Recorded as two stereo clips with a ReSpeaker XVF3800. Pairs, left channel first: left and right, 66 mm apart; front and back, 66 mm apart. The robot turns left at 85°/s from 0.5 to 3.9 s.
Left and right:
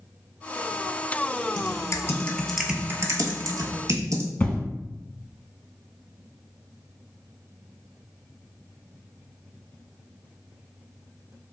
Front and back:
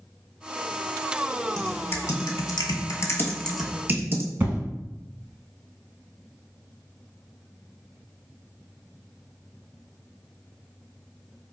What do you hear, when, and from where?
1.6 s typing on a keyboard: 80° left, 0.7 m; by 4.3 s 120° right, 0.7 m
4.4 s an explosion: 140° left, 0.9 m